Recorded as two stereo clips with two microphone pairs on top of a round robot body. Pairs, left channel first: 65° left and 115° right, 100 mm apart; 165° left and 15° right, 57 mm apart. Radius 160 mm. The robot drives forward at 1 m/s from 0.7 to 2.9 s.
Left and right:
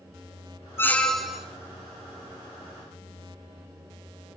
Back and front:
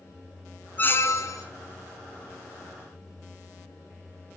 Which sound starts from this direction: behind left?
A squeak, at 0.8 s.